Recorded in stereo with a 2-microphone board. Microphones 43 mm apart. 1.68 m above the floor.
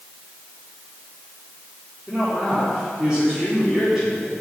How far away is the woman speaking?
About 4 m.